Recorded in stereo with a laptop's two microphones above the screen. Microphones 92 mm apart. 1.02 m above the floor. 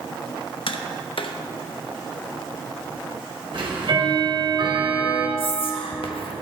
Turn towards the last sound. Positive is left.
turn(degrees=75)  # may be behind; listen again after turning